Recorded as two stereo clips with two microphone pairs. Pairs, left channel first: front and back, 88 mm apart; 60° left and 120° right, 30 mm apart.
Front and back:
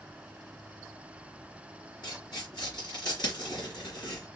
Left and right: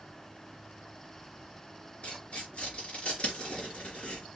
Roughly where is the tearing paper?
Ahead.